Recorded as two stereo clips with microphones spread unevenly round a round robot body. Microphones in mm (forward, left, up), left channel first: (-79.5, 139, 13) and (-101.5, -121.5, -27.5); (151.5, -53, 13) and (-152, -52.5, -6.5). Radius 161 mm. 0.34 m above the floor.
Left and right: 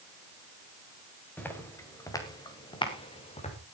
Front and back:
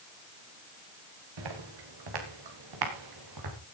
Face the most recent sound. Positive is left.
turn(degrees=150)